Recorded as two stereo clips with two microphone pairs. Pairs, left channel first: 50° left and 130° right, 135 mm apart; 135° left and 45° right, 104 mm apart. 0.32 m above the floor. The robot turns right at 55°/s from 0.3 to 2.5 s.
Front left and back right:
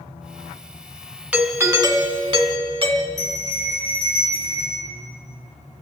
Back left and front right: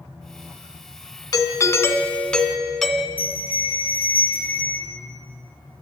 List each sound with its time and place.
1.3 s a doorbell: 150° left, 1.6 m; by 3.1 s 145° right, 1.6 m
3.2 s a bell: 30° left, 8 m